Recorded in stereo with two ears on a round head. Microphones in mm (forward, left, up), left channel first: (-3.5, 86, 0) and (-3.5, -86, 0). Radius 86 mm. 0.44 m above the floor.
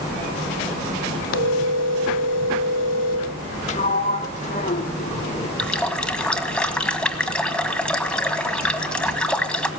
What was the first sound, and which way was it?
A phone ringing, 70° left (ahead or behind).